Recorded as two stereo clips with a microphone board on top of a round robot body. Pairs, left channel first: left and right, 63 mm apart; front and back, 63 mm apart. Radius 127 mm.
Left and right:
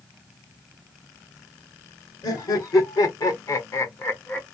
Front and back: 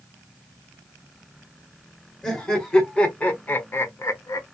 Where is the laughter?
85° left, 1.6 m; by 4.5 s 20° left, 0.8 m.